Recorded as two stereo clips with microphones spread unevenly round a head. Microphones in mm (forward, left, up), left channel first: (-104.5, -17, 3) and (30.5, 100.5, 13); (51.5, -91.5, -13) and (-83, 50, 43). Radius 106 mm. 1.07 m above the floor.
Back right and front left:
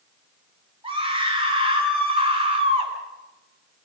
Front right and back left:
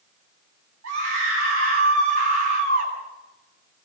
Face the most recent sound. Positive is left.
turn(degrees=100)